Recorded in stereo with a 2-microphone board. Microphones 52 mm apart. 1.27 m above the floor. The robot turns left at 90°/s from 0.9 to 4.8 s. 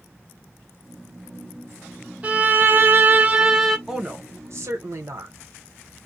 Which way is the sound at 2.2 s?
45° right.